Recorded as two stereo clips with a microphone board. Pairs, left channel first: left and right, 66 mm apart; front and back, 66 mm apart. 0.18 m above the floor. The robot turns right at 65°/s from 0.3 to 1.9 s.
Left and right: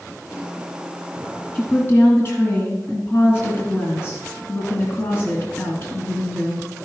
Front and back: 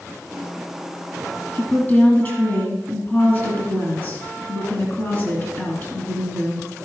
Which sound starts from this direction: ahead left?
A woman speaking, at 1.6 s.